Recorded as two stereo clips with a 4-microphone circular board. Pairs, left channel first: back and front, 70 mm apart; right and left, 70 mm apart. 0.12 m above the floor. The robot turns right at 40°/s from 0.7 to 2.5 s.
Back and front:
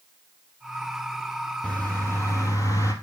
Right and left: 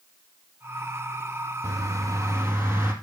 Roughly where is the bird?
Behind left.